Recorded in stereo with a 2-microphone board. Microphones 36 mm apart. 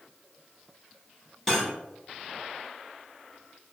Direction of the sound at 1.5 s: 10° left (ahead or behind).